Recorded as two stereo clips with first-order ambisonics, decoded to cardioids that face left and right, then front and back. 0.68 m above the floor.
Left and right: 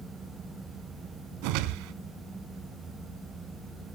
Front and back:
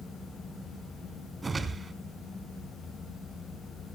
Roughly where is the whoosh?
Right.